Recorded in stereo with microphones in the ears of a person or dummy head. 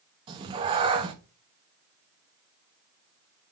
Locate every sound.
0.3 s a cat meowing: 25° right (ahead or behind), 1.0 m